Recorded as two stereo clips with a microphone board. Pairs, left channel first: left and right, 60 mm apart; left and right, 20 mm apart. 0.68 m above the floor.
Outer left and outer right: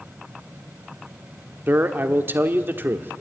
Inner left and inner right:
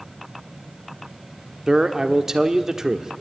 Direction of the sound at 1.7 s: 35° right (ahead or behind).